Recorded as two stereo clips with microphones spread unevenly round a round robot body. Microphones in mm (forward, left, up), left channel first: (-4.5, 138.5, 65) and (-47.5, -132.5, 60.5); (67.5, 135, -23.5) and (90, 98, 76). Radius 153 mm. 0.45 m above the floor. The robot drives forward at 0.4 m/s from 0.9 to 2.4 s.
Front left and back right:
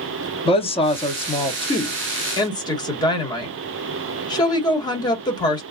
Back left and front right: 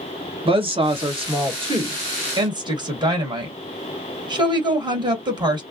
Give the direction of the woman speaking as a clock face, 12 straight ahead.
10 o'clock.